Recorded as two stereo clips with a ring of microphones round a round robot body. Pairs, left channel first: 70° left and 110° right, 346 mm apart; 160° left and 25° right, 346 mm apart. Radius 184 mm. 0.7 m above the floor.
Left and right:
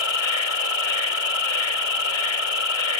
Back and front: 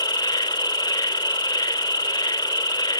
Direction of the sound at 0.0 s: 80° left.